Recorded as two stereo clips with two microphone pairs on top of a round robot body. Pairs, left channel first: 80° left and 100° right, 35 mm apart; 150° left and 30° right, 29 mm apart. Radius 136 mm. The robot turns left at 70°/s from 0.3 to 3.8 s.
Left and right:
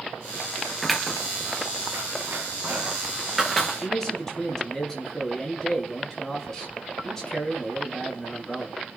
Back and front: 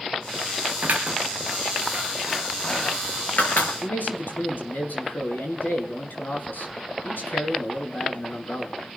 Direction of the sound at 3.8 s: 155° left.